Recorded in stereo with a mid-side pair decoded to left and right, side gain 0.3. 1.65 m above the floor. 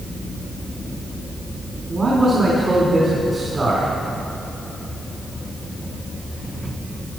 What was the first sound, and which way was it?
A man speaking, 40° right.